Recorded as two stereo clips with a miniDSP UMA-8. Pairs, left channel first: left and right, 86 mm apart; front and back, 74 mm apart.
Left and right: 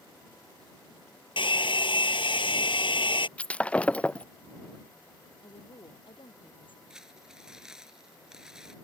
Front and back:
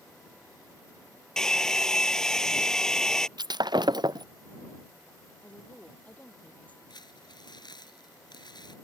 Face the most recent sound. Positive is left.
turn(degrees=-10)